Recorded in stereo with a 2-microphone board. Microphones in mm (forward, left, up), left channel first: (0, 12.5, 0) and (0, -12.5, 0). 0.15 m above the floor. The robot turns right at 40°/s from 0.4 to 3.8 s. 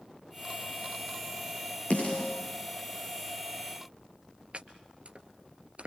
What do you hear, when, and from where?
1.9 s a snare drum: 60° left (ahead or behind), 9.5 m; by 2.3 s 45° left (ahead or behind), 9.5 m
4.5 s chopping: 55° right (ahead or behind), 1.6 m